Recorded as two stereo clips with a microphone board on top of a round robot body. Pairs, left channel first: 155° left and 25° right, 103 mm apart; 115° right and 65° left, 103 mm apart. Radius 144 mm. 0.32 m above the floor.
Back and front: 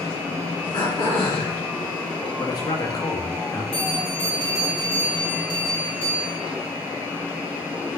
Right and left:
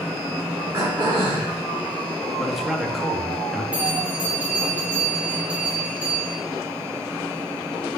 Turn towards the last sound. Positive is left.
turn(degrees=145)